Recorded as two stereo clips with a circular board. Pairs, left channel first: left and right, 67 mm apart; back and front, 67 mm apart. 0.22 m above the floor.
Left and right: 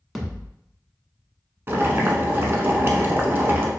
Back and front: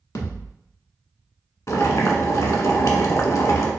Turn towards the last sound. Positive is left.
turn(degrees=-145)